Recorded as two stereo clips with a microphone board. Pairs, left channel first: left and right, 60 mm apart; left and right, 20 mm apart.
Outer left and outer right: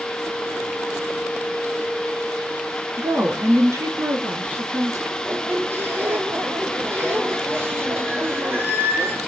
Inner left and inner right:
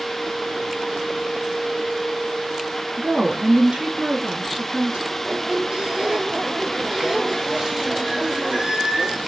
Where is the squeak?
40° right (ahead or behind), 1.2 m.